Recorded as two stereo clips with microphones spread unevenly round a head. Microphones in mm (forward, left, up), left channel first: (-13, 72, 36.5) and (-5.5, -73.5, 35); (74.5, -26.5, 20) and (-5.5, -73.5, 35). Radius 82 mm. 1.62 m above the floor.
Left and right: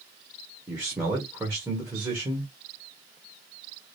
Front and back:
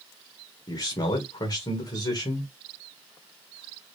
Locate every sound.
0.7 s a man speaking: 5° right, 2 m